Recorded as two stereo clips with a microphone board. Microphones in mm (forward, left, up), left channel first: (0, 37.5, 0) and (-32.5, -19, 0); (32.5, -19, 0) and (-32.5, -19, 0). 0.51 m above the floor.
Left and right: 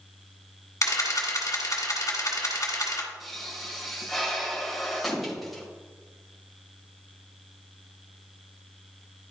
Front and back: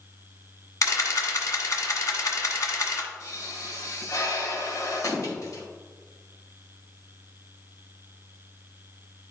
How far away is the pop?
About 2 m.